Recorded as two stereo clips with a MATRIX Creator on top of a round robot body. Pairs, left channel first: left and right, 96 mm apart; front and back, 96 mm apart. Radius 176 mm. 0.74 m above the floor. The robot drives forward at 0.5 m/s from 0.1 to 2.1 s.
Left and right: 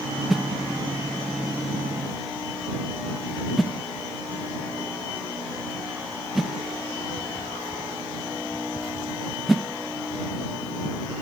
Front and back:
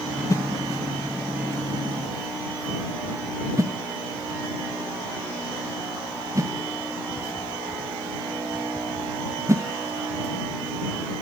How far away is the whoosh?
About 0.9 m.